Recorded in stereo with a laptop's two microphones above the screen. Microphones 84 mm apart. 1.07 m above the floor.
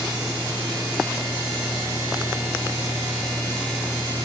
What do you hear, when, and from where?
Only background noise.